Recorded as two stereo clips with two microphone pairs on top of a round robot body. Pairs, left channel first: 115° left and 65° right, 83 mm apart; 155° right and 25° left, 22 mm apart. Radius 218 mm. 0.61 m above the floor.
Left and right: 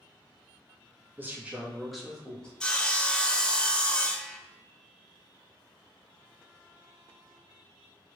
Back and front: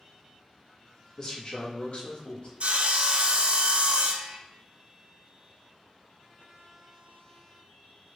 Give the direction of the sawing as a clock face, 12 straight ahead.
11 o'clock.